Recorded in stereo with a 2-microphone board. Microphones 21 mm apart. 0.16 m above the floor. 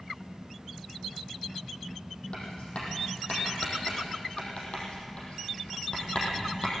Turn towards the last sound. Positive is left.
turn(degrees=55)  # may be behind; listen again after turning